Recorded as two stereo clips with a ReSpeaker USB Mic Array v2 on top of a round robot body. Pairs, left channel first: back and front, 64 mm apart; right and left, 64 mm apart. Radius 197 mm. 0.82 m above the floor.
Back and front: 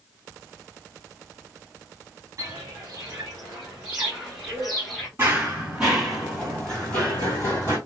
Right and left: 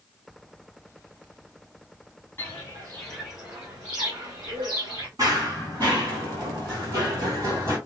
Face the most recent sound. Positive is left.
turn(degrees=130)